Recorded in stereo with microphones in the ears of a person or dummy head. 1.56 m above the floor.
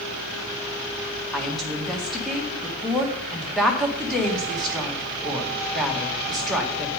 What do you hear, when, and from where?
1.3 s a woman speaking: centre (ahead or behind), 1.6 m